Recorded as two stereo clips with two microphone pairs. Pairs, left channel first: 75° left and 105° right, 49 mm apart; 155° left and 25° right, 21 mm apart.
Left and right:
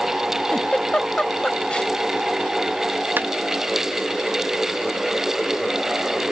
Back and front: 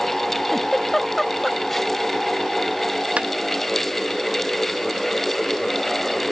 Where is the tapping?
60° right.